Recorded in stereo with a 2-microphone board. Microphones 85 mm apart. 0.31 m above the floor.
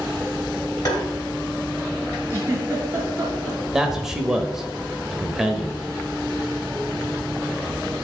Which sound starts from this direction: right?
A giggle, at 2.3 s.